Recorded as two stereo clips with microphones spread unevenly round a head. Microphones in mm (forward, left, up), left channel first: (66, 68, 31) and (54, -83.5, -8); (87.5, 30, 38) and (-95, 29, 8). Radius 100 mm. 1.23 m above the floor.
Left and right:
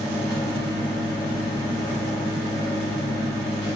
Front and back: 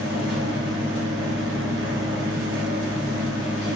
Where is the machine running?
160° left, 3.5 m.